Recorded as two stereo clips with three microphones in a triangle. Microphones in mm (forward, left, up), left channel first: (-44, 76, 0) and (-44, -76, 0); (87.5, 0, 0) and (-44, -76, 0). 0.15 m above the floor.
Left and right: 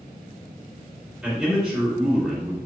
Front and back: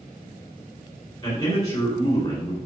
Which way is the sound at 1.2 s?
10° right.